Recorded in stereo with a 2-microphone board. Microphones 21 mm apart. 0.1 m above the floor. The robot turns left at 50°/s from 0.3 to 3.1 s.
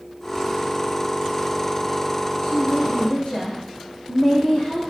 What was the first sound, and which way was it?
A woman speaking, 95° left.